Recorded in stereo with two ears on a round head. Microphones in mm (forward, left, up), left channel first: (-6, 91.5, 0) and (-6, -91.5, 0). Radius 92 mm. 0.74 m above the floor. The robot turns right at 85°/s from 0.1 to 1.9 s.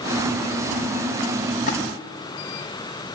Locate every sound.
1.7 s a splash: 45° left (ahead or behind), 4 m; by 1.8 s 35° left (ahead or behind), 4 m